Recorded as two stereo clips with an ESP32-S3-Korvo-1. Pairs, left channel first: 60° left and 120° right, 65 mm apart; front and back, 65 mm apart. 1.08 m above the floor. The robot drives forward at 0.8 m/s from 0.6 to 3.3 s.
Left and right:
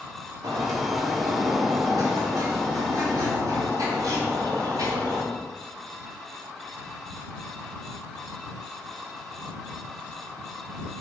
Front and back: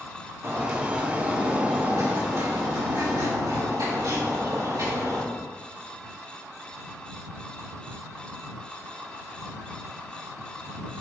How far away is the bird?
About 2.5 m.